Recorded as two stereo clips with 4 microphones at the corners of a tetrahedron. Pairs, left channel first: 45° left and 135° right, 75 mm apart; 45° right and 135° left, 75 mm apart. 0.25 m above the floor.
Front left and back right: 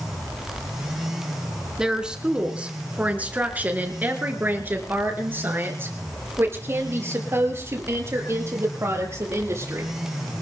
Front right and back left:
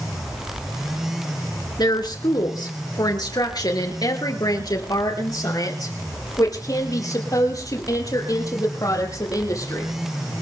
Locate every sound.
1.8 s a woman speaking: 55° right, 3 m; by 9.9 s 85° right, 7.5 m